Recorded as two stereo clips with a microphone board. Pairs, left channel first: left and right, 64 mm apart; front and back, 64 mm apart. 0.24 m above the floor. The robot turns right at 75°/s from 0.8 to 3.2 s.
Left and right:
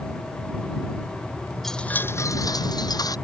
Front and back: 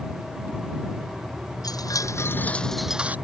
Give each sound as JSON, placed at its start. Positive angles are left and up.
{"t": 1.6, "sound": "a chime", "azimuth_deg": 0}